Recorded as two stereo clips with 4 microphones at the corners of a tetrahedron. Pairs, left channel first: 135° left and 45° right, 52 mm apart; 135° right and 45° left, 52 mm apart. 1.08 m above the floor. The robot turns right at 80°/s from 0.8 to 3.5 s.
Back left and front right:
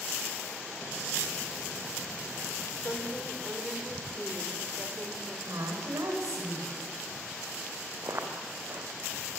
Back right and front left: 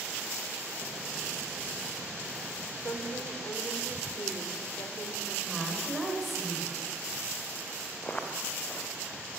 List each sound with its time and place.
2.8 s a woman speaking: 175° right, 3.5 m; by 5.4 s 125° right, 3.5 m
5.5 s a woman speaking: 45° right, 5 m
8.0 s footsteps: 75° right, 4 m